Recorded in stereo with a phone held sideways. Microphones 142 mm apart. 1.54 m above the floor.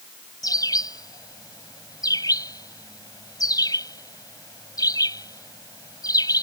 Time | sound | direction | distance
0.4 | a bird | 25° left (ahead or behind) | ?